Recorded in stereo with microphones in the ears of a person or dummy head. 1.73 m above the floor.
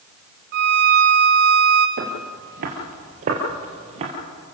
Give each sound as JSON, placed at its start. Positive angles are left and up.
{"t": 0.5, "sound": "a violin", "side_deg": -45, "distance_m": 1.2}
{"t": 2.0, "sound": "footsteps", "side_deg": -50, "distance_m": 2.5}